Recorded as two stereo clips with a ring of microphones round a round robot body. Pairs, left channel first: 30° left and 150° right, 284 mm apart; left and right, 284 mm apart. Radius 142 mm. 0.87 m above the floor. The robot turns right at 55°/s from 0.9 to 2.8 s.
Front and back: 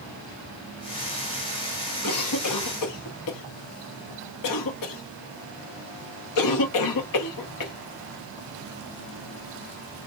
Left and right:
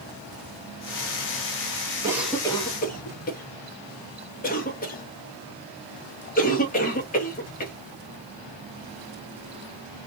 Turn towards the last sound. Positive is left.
turn(degrees=30)